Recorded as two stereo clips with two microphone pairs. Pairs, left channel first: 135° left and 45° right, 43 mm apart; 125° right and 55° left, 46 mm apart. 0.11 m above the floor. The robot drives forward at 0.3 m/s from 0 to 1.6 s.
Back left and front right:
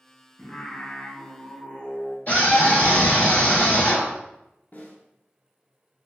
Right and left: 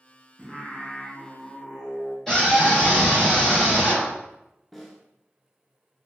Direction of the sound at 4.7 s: 145° left.